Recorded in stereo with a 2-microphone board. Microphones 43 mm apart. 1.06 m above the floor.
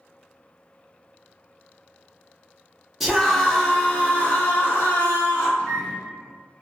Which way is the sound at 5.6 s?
20° left (ahead or behind).